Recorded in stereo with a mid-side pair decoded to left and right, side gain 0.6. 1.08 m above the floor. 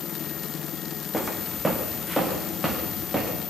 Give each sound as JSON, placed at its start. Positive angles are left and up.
{"t": 1.1, "sound": "footsteps", "azimuth_deg": 0, "distance_m": 4.5}